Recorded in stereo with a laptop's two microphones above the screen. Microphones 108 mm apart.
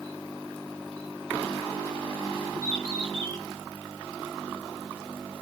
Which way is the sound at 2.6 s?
40° right (ahead or behind).